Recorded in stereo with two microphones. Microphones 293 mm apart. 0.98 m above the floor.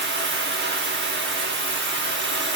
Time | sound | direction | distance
0.0 | running water | 40° right (ahead or behind) | 1.0 m